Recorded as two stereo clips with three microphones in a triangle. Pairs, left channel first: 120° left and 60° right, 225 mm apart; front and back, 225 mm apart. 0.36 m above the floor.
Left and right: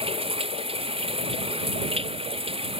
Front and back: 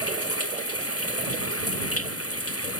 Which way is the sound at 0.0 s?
5° left.